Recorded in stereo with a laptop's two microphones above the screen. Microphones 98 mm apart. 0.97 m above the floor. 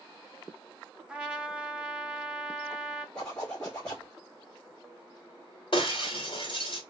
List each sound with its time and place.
1.1 s a trumpet: 10° right (ahead or behind), 0.9 m
3.1 s a zipper: 10° left (ahead or behind), 1.6 m
5.7 s breaking glass: 60° left (ahead or behind), 1.7 m